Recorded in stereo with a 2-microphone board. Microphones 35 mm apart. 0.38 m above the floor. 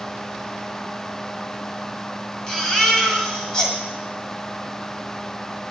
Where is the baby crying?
15° left (ahead or behind), 1.9 m.